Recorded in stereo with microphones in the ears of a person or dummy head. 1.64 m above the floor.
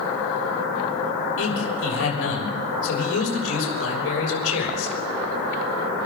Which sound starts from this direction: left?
A man speaking, at 1.4 s.